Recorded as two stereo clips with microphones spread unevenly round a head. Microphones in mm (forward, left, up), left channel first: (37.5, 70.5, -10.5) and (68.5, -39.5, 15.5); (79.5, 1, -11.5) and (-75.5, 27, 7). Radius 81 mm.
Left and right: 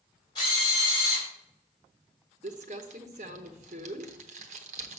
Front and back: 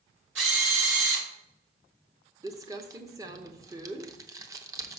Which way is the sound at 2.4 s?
120° right.